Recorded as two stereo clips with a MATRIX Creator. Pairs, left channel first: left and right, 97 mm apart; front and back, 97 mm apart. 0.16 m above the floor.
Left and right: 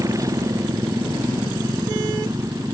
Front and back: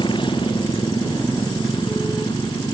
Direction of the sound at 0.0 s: 35° right.